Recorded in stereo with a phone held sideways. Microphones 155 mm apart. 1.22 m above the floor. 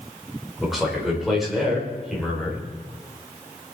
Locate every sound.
0.6 s a man speaking: centre (ahead or behind), 4 m